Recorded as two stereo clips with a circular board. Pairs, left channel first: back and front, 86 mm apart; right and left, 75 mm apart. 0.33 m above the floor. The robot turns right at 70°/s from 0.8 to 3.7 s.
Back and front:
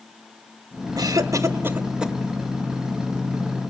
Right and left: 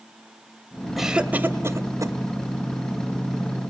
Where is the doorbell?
No doorbell in this recording.